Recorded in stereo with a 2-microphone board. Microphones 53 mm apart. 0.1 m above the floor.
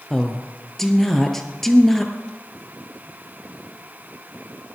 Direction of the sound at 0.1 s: 10° left (ahead or behind).